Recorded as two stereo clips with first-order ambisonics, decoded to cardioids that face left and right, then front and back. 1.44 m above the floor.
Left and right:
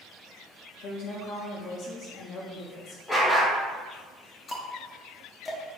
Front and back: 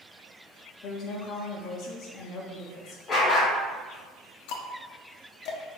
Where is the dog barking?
35° left, 1.1 m.